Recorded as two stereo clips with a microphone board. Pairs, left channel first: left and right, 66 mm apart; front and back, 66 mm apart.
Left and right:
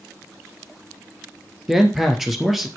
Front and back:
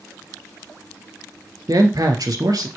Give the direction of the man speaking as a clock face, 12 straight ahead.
6 o'clock.